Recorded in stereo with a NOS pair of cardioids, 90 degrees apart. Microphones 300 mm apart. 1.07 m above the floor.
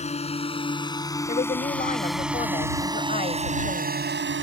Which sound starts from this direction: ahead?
A drone, at 0.0 s.